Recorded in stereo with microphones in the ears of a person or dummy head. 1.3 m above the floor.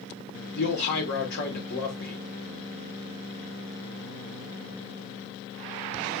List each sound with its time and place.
0.6 s a man speaking: 60° left (ahead or behind), 1.2 m